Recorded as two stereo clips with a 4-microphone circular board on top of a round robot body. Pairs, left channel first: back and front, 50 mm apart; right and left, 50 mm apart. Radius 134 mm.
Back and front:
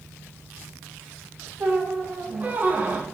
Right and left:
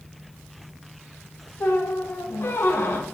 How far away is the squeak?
About 0.7 m.